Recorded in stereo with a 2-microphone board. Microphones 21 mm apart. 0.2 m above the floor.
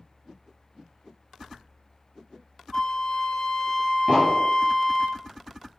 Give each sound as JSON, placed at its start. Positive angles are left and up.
{"t": 2.7, "sound": "a flute", "side_deg": 45, "distance_m": 1.0}
{"t": 4.1, "sound": "an explosion", "side_deg": -70, "distance_m": 3.0}